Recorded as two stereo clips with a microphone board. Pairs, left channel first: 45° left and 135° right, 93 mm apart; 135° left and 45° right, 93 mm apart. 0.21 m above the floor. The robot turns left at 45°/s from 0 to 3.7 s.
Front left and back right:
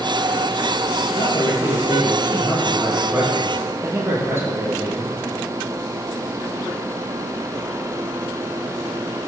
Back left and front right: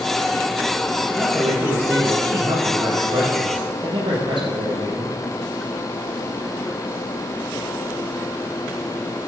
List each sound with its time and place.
1.1 s a man speaking: 45° left, 5 m; by 5.2 s 70° right, 5 m